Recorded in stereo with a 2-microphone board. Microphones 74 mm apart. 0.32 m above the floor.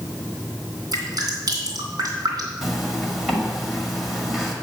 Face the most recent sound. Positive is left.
turn(degrees=-5)  # may be behind; listen again after turning